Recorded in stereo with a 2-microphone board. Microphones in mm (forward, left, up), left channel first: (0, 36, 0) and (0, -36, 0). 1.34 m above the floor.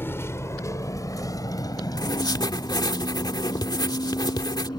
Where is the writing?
75° left (ahead or behind).